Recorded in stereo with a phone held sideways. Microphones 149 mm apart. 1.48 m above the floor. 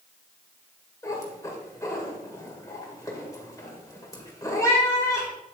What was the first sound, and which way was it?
A cat meowing, 20° left (ahead or behind).